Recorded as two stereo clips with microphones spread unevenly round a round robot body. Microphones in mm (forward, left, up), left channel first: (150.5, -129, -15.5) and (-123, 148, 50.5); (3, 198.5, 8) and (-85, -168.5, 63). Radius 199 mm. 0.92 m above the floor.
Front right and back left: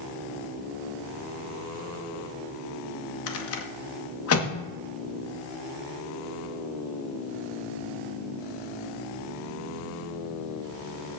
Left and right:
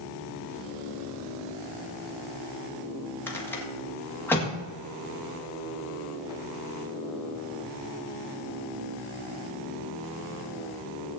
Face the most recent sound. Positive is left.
turn(degrees=-5)